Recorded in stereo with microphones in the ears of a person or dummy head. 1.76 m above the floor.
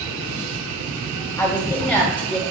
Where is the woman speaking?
20° left (ahead or behind), 2.5 m; by 2.4 s 5° left (ahead or behind), 3 m.